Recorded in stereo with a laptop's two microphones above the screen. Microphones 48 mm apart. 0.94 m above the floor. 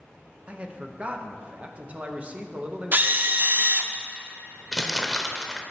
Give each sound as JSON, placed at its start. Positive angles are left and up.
{"t": 0.5, "sound": "a man speaking", "side_deg": -25, "distance_m": 0.7}
{"t": 2.9, "sound": "a drill", "side_deg": -40, "distance_m": 0.5}
{"t": 4.7, "sound": "crumpling", "side_deg": 10, "distance_m": 0.7}